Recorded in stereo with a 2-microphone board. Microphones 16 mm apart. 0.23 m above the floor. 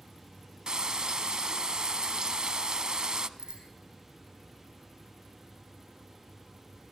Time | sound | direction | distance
0.7 | frying | 50° right (ahead or behind) | 0.7 m
3.4 | a bicycle bell | 55° right (ahead or behind) | 7.5 m